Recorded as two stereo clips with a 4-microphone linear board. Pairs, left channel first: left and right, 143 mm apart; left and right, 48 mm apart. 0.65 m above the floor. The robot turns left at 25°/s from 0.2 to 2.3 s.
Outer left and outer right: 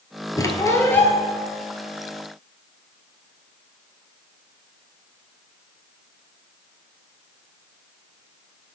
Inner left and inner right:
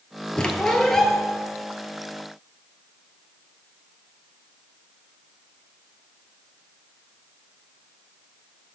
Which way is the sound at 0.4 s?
25° left (ahead or behind).